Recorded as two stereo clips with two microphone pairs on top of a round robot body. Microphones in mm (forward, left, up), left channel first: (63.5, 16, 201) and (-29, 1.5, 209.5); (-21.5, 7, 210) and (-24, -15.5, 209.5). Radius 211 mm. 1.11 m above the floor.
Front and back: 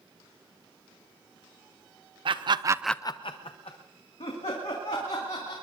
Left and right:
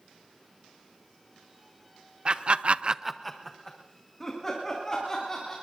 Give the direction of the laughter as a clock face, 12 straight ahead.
5 o'clock.